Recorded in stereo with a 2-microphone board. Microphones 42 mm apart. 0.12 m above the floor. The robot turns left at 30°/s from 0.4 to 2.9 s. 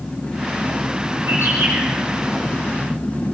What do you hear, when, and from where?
1.3 s a bird: 70° right (ahead or behind), 7 m; by 3.3 s 55° right (ahead or behind), 7 m